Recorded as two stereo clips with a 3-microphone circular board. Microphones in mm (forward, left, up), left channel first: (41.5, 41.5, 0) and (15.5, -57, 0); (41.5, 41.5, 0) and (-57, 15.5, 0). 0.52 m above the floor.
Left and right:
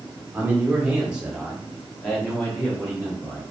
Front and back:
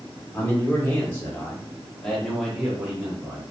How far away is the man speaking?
About 1.2 m.